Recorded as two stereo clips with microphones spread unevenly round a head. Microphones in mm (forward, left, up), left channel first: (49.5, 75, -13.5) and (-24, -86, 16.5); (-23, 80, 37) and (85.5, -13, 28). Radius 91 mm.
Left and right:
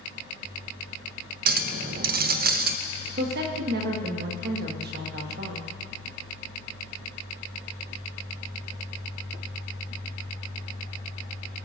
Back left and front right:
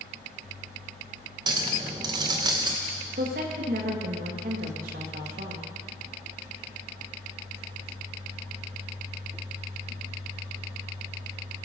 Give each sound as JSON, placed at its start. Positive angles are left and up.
{"t": 1.5, "sound": "a clink", "azimuth_deg": -110, "distance_m": 0.7}
{"t": 3.2, "sound": "a woman speaking", "azimuth_deg": -80, "distance_m": 2.0}